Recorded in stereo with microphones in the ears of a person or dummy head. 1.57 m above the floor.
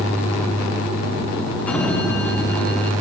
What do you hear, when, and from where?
1.7 s a sliding door: 5° left (ahead or behind), 0.8 m